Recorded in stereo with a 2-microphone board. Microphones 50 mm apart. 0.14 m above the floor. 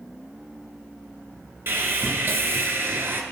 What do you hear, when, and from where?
1.7 s sawing: 50° right (ahead or behind), 0.8 m